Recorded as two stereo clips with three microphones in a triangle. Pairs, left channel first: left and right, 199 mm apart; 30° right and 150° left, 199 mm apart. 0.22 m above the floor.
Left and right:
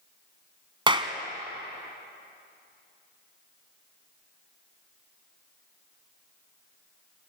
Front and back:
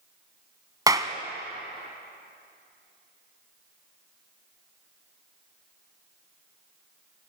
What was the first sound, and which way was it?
A clap, 145° right.